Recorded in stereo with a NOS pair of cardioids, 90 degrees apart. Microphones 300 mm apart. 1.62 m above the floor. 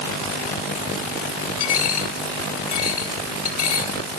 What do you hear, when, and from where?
1.6 s a dropped coin: 70° left, 3.5 m